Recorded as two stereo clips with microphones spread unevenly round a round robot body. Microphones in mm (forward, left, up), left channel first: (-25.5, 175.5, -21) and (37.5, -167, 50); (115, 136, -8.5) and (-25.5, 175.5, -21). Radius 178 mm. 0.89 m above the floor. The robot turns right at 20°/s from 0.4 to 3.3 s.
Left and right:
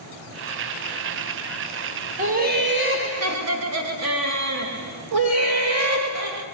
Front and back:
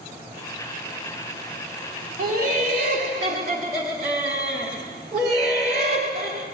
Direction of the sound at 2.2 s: 155° right.